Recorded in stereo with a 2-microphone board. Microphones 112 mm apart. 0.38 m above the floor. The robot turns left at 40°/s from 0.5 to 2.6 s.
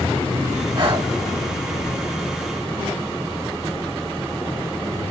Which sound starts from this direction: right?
Breathing, at 0.8 s.